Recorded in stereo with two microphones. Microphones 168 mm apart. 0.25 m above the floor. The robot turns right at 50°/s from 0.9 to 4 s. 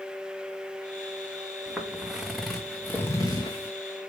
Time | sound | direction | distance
1.7 | footsteps | 5° right (ahead or behind) | 1.5 m